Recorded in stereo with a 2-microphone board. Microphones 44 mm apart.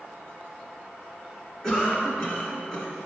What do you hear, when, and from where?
1.6 s a cough: 15° left (ahead or behind), 3 m